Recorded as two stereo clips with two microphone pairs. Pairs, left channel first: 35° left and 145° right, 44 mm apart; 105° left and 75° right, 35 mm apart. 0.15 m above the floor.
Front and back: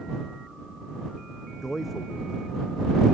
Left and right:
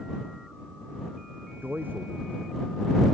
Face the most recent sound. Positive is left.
turn(degrees=-55)